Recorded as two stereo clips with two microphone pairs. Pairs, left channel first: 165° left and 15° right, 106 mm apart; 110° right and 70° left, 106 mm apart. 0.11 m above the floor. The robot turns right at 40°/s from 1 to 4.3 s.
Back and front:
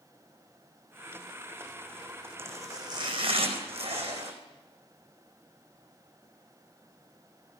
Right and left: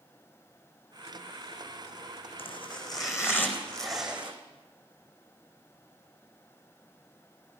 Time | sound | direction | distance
2.4 | chopping | 80° right | 4.5 m